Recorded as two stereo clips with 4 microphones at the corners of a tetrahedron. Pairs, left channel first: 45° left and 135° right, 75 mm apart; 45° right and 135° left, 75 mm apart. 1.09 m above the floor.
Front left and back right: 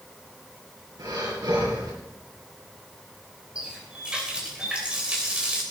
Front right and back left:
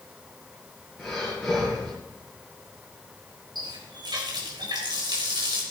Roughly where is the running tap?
Behind left.